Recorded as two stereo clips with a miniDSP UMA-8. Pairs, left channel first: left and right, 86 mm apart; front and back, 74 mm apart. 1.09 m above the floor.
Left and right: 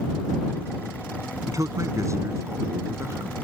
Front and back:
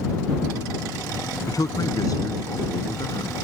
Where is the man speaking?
40° right; by 3.3 s 35° right.